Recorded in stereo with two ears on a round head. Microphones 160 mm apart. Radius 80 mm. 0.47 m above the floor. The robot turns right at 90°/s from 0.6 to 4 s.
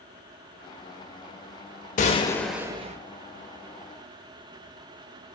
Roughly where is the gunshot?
Behind left.